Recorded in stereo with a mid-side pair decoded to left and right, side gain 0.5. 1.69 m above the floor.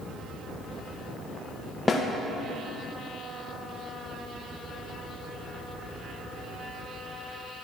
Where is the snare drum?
25° left, 1.5 m.